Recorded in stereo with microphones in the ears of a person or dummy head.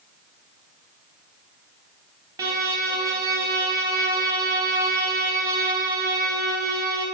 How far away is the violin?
About 0.6 m.